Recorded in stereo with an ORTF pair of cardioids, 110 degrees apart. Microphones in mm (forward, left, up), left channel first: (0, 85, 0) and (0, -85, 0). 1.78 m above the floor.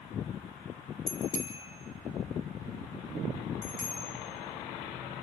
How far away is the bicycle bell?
About 6.5 m.